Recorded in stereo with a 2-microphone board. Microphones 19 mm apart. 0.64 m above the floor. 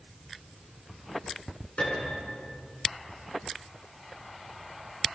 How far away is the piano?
About 6.5 m.